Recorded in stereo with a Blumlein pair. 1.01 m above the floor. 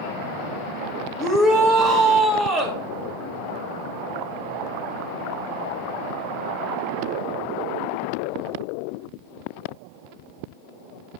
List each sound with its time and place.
1.2 s a shout: 10° left, 1.8 m